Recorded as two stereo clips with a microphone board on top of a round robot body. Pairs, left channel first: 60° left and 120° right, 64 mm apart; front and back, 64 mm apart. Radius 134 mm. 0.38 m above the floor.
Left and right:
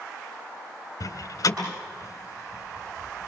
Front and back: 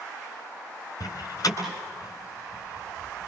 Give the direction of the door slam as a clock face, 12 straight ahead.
11 o'clock.